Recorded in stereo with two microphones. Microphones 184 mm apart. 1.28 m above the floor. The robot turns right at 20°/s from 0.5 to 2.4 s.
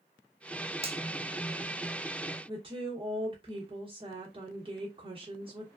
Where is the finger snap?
30° right (ahead or behind), 0.7 m.